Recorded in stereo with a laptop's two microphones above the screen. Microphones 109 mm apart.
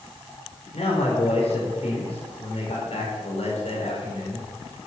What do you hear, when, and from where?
0.7 s a man speaking: 70° left (ahead or behind), 4 m